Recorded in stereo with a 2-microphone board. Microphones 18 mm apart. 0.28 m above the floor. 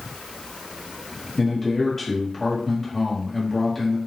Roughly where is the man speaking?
Centre.